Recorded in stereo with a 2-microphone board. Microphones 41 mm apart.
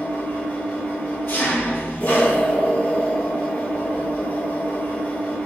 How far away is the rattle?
I don't hear a rattle.